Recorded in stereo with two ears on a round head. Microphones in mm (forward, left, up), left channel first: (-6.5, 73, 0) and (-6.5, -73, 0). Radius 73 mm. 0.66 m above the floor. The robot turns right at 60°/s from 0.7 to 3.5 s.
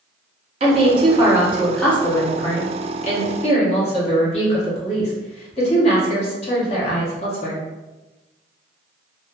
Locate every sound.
0.6 s a woman speaking: 60° right, 0.9 m; by 7.6 s 105° left, 0.9 m